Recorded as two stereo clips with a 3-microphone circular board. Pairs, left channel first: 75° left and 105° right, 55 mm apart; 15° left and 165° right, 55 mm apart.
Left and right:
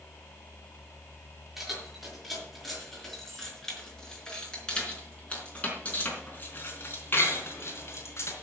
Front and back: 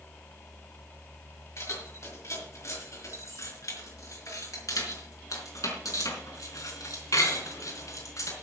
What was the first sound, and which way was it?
Keys jangling, 20° right.